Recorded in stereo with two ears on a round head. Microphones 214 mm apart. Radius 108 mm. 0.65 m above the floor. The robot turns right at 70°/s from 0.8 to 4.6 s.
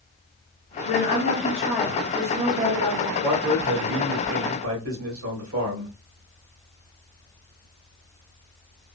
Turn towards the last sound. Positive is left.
turn(degrees=-75)